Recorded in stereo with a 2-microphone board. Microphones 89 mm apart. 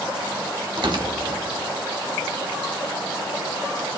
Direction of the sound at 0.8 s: 60° right (ahead or behind).